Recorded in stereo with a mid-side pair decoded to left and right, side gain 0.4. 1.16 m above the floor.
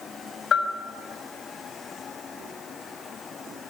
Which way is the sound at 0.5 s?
60° left.